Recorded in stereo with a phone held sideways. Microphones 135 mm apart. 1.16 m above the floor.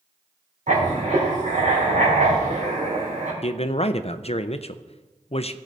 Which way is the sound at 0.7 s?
70° right (ahead or behind).